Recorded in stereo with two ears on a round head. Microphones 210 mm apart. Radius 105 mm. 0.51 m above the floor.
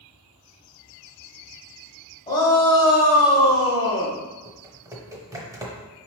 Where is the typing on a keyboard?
15° right (ahead or behind), 0.8 m.